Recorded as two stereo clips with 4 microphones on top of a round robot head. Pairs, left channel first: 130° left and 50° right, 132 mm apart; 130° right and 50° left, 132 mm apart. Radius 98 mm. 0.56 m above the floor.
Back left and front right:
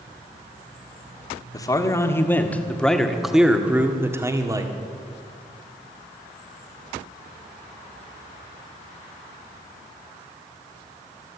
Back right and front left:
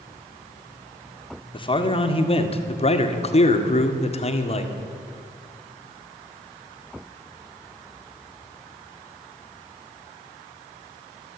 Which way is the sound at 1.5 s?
170° right.